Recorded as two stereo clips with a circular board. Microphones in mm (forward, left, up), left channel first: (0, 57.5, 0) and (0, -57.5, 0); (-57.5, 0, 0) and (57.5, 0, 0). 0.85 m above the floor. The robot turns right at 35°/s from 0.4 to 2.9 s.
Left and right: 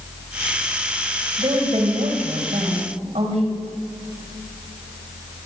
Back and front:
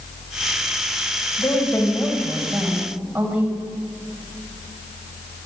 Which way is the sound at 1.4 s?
130° right.